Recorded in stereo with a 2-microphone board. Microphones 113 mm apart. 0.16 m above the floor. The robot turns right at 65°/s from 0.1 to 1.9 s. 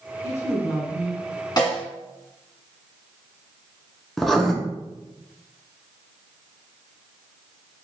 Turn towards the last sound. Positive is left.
turn(degrees=0)  # may be behind; listen again after turning